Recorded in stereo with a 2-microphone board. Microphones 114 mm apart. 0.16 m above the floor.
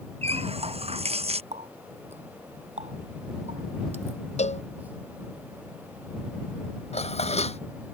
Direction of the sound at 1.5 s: 75° right (ahead or behind).